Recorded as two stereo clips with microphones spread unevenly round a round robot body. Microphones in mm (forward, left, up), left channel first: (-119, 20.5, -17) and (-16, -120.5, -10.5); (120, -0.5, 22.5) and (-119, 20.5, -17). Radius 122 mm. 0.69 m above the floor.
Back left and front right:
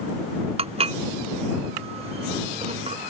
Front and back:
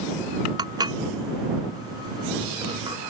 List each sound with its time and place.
0.6 s dishes clattering: 110° right